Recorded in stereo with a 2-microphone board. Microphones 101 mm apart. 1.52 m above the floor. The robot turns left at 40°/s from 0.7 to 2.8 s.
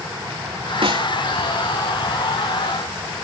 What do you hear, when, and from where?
0.8 s a snare drum: 65° right (ahead or behind); by 1.1 s 50° right (ahead or behind)